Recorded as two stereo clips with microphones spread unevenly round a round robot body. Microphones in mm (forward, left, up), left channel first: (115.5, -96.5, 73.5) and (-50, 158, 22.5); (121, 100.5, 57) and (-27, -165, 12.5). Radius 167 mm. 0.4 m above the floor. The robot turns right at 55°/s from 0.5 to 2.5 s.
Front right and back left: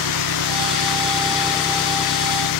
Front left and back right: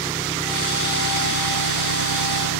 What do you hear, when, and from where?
0.0 s an engine running: 155° left; by 2.6 s 95° right